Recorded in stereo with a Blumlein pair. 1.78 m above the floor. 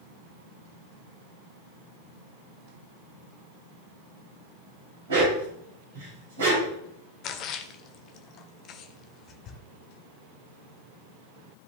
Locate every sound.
5.1 s a dog barking: 60° right, 4 m
7.2 s a splash: 35° left, 1.0 m